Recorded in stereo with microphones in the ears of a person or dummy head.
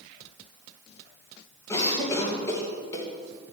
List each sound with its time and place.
1.7 s a cough: 20° left (ahead or behind), 2 m